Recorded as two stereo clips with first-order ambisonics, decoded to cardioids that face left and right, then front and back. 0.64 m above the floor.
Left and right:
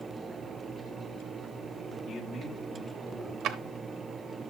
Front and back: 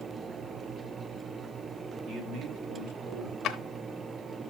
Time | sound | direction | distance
2.1 | a man speaking | 145° left | 1.7 m
3.4 | a drawer | 50° right | 0.6 m